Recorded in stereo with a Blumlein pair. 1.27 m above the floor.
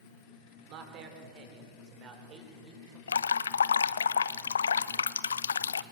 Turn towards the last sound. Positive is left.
turn(degrees=70)